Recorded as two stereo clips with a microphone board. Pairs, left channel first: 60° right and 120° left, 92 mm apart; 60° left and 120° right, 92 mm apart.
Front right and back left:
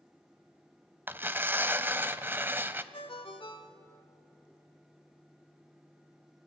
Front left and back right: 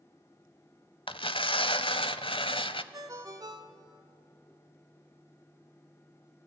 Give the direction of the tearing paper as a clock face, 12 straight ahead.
10 o'clock.